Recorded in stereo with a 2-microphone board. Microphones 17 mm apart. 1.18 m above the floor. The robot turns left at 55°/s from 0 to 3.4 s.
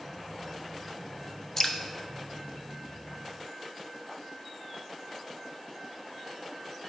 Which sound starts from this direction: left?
Dripping, at 1.6 s.